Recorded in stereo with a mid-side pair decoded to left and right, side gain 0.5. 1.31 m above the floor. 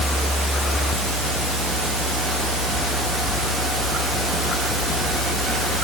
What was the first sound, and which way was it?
Only background noise.